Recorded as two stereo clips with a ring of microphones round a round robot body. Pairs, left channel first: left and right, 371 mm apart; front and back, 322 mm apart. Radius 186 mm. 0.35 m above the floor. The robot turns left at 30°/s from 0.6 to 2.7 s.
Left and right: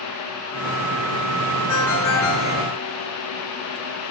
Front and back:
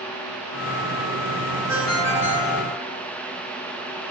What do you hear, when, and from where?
1.7 s a ringtone: 100° left, 4.5 m; by 2.6 s 75° left, 4.5 m